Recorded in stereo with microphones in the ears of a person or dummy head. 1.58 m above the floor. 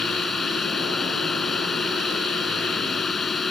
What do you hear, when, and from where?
0.0 s a drone: centre (ahead or behind)